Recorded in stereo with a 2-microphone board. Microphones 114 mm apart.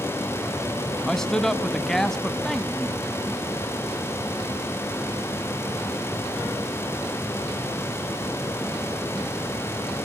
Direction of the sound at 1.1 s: 5° left (ahead or behind).